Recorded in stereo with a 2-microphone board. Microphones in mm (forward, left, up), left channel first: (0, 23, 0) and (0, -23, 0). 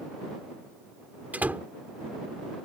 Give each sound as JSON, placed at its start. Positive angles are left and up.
{"t": 1.3, "sound": "a door slam", "side_deg": -35}